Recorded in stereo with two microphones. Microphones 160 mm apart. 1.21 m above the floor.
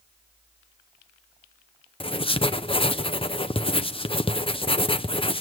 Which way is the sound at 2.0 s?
35° left (ahead or behind).